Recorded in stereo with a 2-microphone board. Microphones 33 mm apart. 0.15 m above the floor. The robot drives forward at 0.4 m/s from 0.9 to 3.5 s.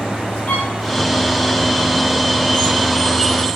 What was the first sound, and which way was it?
A violin, 65° left (ahead or behind).